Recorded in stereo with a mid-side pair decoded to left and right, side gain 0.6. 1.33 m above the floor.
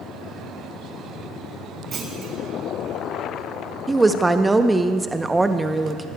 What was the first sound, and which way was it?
A clunk, 45° right.